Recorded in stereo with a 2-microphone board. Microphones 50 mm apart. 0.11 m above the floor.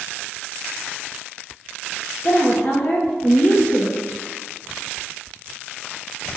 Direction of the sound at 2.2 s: 30° left (ahead or behind).